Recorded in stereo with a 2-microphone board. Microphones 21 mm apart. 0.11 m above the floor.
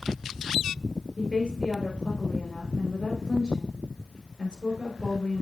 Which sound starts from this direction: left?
A woman speaking, at 1.2 s.